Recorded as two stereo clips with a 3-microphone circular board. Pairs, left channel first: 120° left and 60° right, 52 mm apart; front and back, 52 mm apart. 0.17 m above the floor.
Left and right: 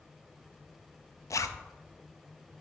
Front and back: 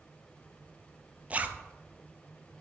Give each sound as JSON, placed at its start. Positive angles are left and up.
{"t": 1.3, "sound": "a zipper", "azimuth_deg": 120, "distance_m": 0.5}